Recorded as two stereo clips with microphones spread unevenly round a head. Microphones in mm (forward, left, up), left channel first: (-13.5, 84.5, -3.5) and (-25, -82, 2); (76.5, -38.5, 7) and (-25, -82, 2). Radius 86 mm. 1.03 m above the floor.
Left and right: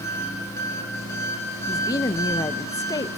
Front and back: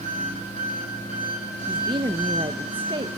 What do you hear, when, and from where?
0.0 s an engine running: 160° left, 4.5 m
1.7 s a woman speaking: 150° left, 0.7 m